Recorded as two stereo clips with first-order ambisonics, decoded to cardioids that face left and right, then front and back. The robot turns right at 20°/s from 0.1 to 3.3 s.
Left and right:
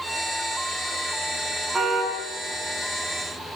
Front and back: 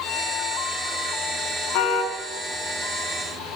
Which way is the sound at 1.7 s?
15° right.